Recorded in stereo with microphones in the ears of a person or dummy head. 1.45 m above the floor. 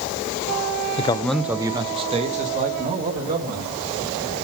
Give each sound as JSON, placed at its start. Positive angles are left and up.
{"t": 1.0, "sound": "a man speaking", "side_deg": 35, "distance_m": 0.6}